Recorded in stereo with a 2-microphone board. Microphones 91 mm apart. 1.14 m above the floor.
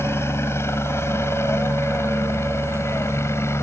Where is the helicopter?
30° left (ahead or behind).